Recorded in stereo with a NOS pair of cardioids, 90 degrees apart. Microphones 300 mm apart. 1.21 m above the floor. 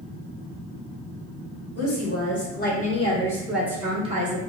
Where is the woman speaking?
50° left, 1.3 m; by 4.4 s 30° right, 1.0 m.